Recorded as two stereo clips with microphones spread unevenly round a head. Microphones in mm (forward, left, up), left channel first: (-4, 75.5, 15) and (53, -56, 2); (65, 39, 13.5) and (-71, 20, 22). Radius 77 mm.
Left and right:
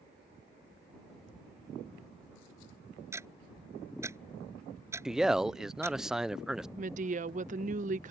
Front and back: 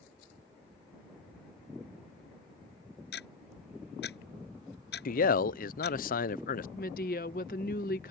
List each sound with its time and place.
3.1 s ticking: 5° left
5.0 s a man speaking: 20° left
6.8 s a woman speaking: 30° right